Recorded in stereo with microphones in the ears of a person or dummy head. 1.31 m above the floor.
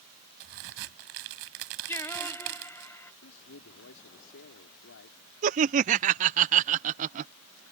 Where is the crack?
70° right (ahead or behind).